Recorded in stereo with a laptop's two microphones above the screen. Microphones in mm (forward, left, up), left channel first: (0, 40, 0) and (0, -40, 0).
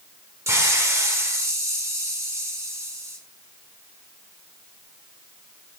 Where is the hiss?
40° right (ahead or behind), 1.3 m.